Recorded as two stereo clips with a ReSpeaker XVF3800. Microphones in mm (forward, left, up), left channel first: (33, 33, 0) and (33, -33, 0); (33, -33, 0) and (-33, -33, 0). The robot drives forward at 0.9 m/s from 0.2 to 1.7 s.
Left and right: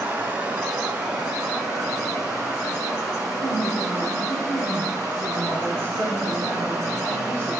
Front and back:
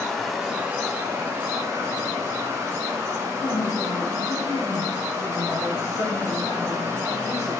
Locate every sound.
0.0 s running water: 85° right, 1.0 m; by 7.6 s 165° right, 1.6 m
3.4 s a woman speaking: 40° left, 1.6 m